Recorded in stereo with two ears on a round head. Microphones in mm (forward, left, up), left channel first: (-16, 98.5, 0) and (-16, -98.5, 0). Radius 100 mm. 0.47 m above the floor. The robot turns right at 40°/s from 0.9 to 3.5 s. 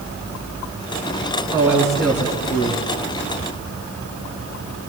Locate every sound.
1.5 s a man speaking: 15° right, 6 m; by 2.9 s 35° left, 6 m